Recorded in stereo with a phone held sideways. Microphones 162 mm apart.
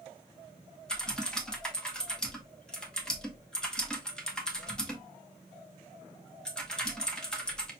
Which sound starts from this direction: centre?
Typing on a keyboard, at 0.9 s.